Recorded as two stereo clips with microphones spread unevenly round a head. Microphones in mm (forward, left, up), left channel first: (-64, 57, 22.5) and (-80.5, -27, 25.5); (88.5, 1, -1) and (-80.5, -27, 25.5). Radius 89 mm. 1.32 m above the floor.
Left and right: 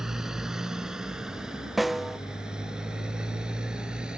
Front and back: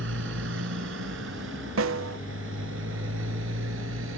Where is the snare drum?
170° left.